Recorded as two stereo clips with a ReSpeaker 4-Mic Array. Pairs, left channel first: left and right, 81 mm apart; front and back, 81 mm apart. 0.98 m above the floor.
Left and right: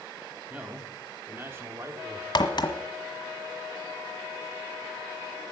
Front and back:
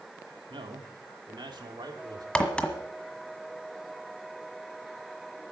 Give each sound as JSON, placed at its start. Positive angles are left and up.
{"t": 0.5, "sound": "a man speaking", "azimuth_deg": -165, "distance_m": 2.5}
{"t": 2.4, "sound": "a crack", "azimuth_deg": 75, "distance_m": 1.5}